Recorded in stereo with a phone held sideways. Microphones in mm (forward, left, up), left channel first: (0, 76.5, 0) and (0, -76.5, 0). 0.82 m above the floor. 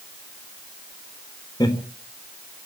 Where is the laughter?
25° left (ahead or behind), 3.5 m.